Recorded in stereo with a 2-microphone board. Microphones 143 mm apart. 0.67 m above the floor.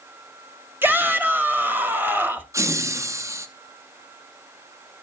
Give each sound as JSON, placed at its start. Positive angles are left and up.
{"t": 0.8, "sound": "a shout", "side_deg": -15, "distance_m": 1.4}
{"t": 2.5, "sound": "laughter", "side_deg": -20, "distance_m": 0.6}